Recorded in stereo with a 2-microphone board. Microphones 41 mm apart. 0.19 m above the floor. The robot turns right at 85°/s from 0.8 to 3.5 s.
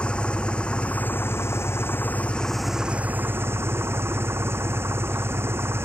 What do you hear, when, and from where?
0.0 s an engine running: 25° left; by 5.8 s 105° right